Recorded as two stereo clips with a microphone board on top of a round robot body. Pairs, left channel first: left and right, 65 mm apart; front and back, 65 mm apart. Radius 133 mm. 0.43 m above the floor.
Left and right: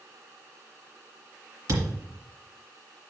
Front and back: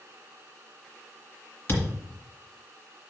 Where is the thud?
50° right, 2.5 m.